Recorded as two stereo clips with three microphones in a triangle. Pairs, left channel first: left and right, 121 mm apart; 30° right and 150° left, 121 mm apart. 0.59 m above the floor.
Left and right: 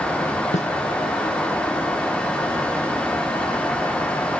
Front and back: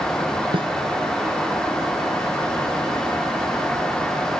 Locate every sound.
0.5 s a snare drum: 105° left